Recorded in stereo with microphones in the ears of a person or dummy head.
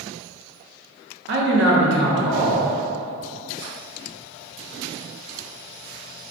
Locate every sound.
1.3 s a man speaking: 60° right (ahead or behind), 0.6 m